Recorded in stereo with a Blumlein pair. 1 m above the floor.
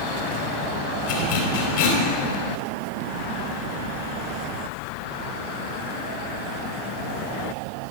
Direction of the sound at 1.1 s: 55° left.